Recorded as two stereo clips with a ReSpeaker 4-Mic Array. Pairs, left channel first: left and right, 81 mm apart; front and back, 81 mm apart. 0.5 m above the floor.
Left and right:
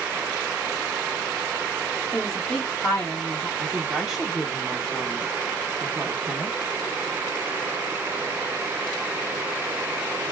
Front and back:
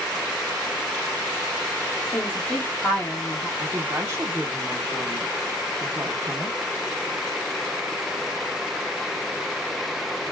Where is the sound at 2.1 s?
50° left, 0.8 m.